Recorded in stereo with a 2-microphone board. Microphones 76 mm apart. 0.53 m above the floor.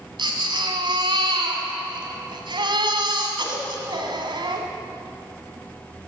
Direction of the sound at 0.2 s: 85° right.